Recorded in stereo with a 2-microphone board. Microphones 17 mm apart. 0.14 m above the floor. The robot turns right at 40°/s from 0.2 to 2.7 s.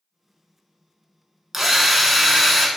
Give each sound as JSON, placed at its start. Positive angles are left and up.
{"t": 1.5, "sound": "a drill", "azimuth_deg": -25, "distance_m": 0.6}